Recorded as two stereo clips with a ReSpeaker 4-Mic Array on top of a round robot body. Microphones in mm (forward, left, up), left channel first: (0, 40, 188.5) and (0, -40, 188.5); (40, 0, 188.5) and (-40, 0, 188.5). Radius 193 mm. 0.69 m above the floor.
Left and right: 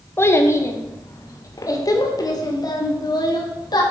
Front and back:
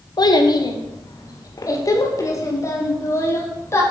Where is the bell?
I don't hear a bell.